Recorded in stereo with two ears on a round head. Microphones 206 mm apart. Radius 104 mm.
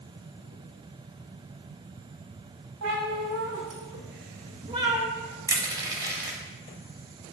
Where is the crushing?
15° right (ahead or behind), 0.8 m.